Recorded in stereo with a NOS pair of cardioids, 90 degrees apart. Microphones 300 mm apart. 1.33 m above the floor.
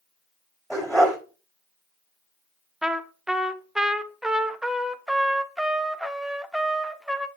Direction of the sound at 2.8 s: Straight ahead.